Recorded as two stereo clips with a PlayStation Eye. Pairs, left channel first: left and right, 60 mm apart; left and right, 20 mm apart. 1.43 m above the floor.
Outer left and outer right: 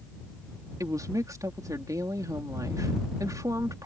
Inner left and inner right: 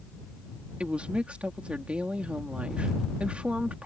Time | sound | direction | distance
0.8 | a woman speaking | 85° right | ?